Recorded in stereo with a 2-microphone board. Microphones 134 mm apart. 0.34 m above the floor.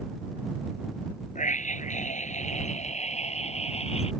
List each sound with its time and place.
1.4 s a scream: 70° left (ahead or behind); by 4.1 s 50° left (ahead or behind)